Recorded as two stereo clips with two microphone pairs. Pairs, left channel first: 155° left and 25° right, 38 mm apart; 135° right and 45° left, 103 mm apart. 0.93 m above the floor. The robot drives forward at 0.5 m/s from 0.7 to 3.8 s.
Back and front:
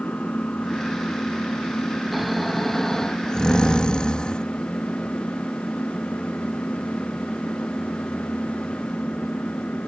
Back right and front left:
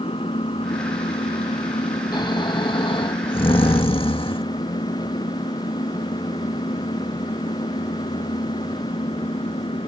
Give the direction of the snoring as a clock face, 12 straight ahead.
4 o'clock.